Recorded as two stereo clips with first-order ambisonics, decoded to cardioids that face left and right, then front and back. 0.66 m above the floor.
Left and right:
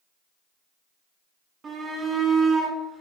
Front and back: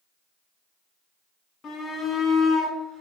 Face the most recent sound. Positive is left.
turn(degrees=175)